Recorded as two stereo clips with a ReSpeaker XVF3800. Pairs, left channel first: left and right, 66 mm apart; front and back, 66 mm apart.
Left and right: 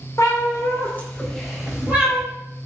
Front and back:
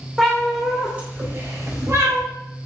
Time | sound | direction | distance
0.2 | a cat meowing | 80° left | 0.8 m